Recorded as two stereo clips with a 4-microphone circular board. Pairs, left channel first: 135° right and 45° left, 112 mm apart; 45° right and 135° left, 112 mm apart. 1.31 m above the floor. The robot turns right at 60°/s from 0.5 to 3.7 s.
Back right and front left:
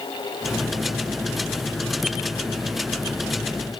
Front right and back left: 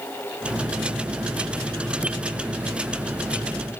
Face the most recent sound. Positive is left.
No sound to turn to.